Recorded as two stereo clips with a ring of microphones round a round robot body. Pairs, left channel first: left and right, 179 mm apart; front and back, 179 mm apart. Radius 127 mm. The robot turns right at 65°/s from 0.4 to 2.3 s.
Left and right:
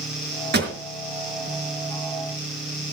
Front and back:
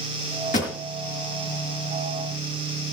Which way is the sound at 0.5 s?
65° right.